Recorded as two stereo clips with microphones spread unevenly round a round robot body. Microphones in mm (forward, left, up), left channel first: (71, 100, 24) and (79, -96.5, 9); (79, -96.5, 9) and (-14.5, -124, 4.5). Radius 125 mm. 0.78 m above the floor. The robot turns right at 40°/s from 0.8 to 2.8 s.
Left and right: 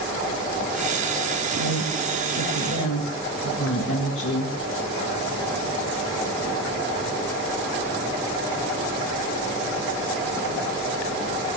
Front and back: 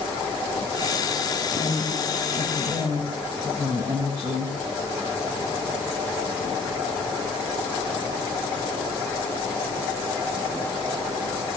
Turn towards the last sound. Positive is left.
turn(degrees=125)